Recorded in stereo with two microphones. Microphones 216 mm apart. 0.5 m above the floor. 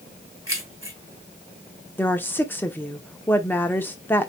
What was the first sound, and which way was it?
Keys jangling, 70° right (ahead or behind).